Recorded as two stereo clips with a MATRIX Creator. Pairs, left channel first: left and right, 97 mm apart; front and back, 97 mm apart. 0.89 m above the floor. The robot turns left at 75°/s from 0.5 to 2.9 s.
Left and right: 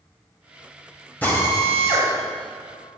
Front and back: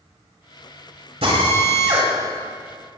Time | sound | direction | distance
1.2 | a drill | 165° left | 5 m